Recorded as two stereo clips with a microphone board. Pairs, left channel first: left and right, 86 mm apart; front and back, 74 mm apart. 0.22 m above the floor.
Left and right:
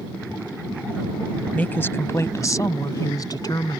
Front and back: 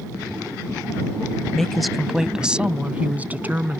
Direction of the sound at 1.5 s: 70° left.